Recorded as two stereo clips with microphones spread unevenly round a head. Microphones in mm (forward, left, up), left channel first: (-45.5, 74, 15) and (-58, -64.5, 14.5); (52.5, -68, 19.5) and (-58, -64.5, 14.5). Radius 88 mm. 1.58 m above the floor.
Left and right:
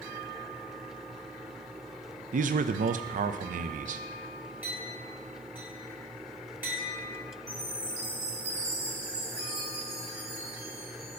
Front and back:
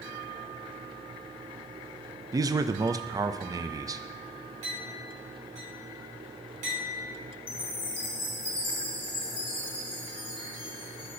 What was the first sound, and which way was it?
A man speaking, 125° right.